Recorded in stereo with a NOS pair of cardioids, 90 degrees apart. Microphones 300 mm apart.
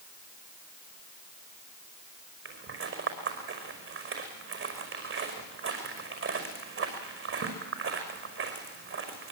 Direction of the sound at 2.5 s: 45° right.